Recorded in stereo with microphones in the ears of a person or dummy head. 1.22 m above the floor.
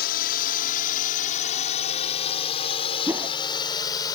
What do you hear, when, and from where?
0.0 s a drone: 45° left (ahead or behind); by 4.2 s 15° left (ahead or behind)
3.1 s a whoosh: 15° right (ahead or behind)